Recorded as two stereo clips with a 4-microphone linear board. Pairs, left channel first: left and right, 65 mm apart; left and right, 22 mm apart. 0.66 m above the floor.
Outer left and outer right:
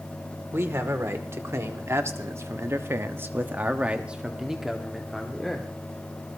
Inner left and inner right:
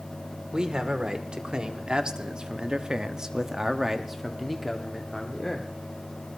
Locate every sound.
0.5 s a man speaking: 40° right (ahead or behind), 2.5 m; by 5.7 s 5° left (ahead or behind), 2 m